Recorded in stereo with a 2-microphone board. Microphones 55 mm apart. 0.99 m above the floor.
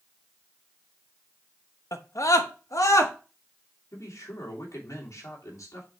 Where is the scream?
65° left (ahead or behind), 1.0 m; by 3.1 s 80° left, 1.7 m.